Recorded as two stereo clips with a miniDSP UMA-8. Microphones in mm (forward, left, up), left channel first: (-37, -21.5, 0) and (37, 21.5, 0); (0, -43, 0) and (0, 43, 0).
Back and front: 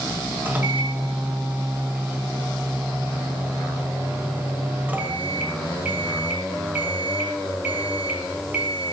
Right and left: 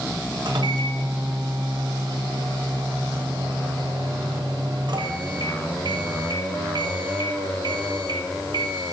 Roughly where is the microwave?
Left.